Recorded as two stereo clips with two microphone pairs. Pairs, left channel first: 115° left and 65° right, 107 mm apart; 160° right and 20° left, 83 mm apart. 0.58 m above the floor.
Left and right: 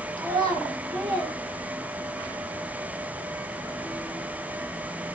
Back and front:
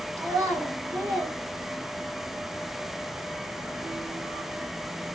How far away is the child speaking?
About 1.1 m.